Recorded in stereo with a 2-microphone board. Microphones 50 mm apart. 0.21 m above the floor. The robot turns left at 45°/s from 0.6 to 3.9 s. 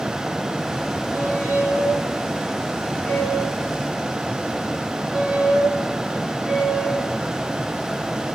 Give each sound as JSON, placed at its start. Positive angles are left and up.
{"t": 1.1, "sound": "a squeak", "side_deg": 55, "distance_m": 5.0}